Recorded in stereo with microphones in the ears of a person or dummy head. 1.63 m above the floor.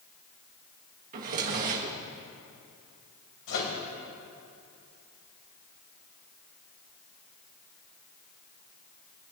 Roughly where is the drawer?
Right.